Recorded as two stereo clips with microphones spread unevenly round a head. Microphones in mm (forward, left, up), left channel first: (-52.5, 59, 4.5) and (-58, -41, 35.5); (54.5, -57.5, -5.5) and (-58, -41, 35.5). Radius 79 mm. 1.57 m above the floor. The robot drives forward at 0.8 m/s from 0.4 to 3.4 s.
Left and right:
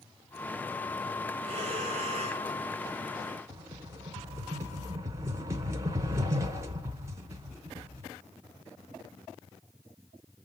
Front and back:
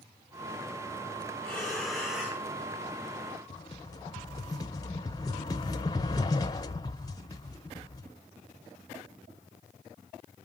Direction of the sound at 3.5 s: 75° right.